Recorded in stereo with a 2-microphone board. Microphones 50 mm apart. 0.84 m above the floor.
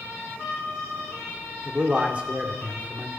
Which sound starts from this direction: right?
A man speaking, at 1.6 s.